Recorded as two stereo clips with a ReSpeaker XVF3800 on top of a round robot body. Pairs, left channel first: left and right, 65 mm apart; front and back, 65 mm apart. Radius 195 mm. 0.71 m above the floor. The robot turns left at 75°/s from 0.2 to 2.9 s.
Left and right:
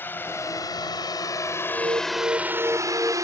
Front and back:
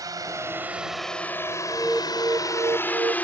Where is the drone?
150° left; by 3.2 s 65° right.